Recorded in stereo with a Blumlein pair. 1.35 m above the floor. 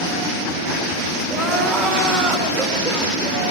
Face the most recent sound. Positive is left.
turn(degrees=-15)